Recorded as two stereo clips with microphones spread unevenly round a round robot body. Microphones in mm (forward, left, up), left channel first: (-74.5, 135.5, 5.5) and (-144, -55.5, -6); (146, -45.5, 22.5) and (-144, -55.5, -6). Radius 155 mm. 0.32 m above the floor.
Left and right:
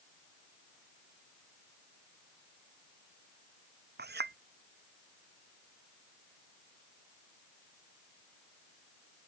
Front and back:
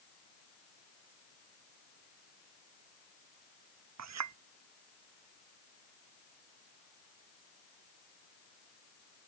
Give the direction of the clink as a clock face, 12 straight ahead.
5 o'clock.